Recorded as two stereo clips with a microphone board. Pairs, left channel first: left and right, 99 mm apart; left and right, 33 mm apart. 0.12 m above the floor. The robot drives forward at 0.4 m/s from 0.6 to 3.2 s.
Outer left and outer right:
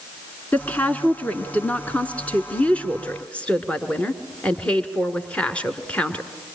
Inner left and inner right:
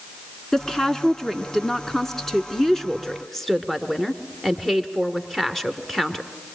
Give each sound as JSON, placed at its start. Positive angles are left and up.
{"t": 0.5, "sound": "a woman speaking", "side_deg": 15, "distance_m": 1.2}